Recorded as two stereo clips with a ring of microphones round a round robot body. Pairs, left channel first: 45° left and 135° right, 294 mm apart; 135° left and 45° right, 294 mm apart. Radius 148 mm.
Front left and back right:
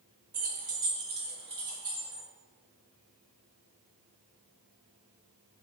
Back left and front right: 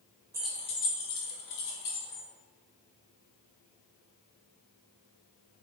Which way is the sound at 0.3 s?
115° right.